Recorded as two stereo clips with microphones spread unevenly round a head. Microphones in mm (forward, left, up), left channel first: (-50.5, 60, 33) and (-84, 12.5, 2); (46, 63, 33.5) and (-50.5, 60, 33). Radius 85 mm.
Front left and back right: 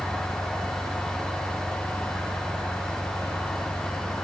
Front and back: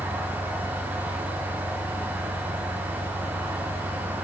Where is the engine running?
160° left.